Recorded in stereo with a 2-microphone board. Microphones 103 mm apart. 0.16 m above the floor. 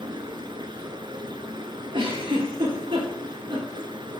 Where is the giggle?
55° right (ahead or behind), 3 m.